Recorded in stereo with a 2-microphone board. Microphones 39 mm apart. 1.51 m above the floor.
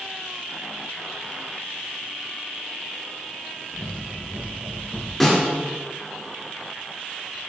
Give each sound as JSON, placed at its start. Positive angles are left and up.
{"t": 3.7, "sound": "running footsteps", "side_deg": -55, "distance_m": 3.0}
{"t": 5.2, "sound": "a snare drum", "side_deg": 0, "distance_m": 3.0}